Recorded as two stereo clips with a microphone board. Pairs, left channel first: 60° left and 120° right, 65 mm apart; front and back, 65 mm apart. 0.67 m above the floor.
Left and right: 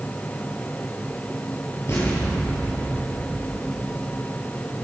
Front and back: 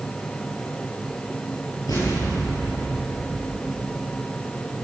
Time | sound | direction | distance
1.9 | an explosion | 10° left | 10 m